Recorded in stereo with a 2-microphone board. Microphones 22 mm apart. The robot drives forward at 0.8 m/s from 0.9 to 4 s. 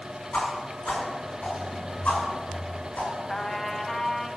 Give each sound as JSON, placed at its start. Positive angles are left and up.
{"t": 0.3, "sound": "a whoosh", "side_deg": 75, "distance_m": 7.0}
{"t": 3.3, "sound": "a trumpet", "side_deg": 20, "distance_m": 1.2}